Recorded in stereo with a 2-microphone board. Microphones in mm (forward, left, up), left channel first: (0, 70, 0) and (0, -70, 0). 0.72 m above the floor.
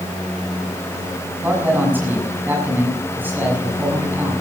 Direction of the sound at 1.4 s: 15° right (ahead or behind).